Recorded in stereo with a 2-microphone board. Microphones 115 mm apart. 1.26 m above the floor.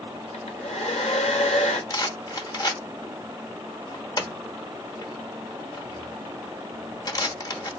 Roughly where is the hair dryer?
Left.